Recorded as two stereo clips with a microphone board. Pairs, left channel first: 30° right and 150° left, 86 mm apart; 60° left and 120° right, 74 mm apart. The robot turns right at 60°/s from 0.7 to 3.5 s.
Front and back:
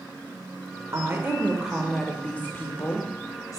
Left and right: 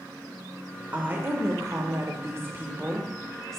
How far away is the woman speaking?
About 0.9 m.